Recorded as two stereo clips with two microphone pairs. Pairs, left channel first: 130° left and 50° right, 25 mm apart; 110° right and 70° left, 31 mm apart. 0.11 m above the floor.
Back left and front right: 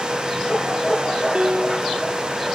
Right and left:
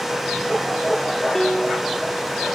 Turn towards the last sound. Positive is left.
turn(degrees=-20)